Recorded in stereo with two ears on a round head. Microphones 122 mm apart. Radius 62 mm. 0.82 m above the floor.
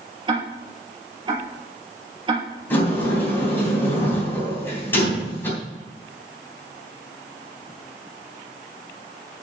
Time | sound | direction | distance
0.3 | ticking | 40° right (ahead or behind) | 3.5 m
2.7 | a sliding door | 15° left (ahead or behind) | 3 m